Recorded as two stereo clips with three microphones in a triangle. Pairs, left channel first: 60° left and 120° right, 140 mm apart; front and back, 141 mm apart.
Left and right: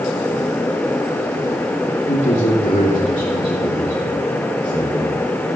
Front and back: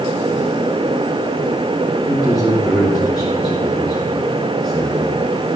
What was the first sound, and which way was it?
A man speaking, 90° left.